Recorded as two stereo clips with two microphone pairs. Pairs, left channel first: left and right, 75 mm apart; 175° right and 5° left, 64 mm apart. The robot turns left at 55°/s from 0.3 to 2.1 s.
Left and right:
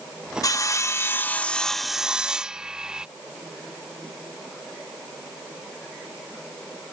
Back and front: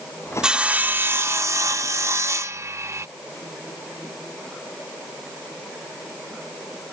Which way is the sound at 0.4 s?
80° left.